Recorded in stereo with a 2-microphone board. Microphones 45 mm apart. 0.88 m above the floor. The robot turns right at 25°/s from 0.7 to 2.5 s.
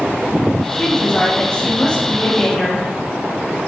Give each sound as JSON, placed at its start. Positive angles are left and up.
{"t": 0.7, "sound": "a woman speaking", "side_deg": 20, "distance_m": 0.6}